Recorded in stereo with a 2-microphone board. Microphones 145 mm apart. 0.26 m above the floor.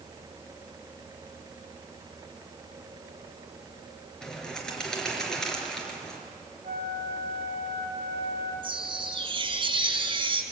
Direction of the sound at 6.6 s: 85° right.